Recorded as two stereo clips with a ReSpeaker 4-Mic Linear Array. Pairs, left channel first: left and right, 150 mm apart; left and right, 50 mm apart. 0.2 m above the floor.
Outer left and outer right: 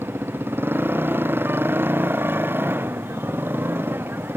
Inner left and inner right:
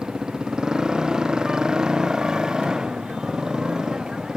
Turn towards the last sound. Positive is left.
turn(degrees=-15)  # may be behind; listen again after turning